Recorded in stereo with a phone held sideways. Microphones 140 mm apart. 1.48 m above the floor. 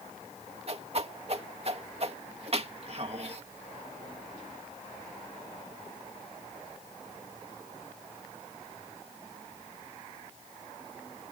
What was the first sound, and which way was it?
A whoosh, 45° right (ahead or behind).